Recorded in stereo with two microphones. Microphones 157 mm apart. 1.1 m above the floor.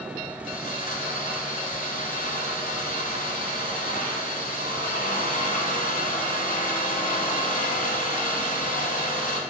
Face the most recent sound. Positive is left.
turn(degrees=60)  # may be behind; listen again after turning